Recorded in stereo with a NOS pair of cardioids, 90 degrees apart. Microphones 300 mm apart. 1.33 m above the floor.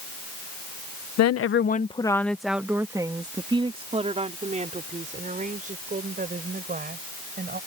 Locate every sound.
1.2 s a woman speaking: 65° left; by 7.6 s 30° right